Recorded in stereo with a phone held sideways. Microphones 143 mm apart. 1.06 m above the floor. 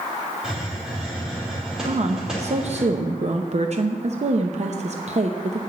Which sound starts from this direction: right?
A woman speaking, at 1.9 s.